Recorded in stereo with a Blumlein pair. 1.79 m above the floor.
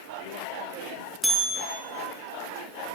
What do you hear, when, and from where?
1.2 s a bell: straight ahead, 2.5 m